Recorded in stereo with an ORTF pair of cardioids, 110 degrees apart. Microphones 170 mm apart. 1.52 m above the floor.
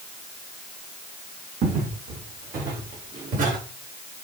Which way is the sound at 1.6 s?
65° right.